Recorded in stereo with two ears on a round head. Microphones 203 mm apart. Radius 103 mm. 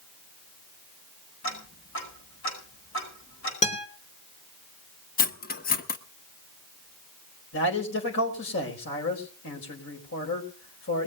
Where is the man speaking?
60° left (ahead or behind), 4.5 m.